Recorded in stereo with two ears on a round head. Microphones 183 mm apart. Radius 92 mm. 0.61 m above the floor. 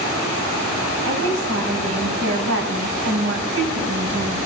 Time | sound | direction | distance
1.1 | a woman speaking | 70° right (ahead or behind) | 5 m